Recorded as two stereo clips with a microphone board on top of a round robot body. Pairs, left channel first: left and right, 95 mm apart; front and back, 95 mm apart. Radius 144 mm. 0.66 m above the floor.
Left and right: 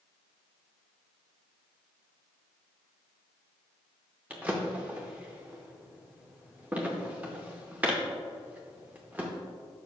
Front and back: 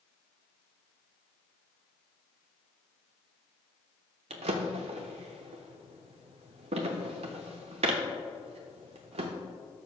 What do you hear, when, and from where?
4.3 s a drawer: 165° right, 0.6 m